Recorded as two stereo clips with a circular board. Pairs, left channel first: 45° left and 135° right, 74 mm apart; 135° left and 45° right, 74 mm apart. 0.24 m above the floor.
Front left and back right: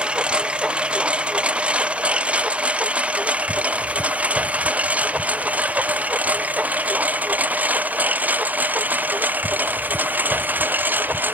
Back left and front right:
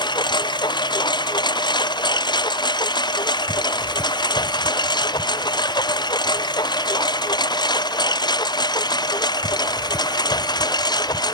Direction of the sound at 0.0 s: 150° left.